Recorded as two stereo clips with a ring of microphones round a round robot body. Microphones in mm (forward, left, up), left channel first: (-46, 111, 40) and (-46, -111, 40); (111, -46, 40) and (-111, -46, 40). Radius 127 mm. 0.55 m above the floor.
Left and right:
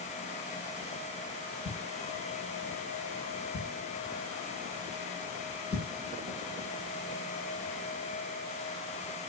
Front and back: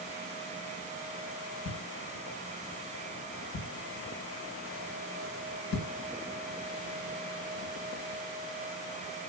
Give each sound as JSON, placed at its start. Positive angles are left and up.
{"t": 1.6, "sound": "a thud", "azimuth_deg": 20, "distance_m": 1.3}